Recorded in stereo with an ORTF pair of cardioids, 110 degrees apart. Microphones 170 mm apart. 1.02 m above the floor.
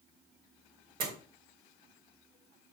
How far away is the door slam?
About 3 m.